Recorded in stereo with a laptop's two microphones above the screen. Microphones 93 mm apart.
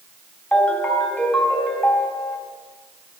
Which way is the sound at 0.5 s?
10° left (ahead or behind).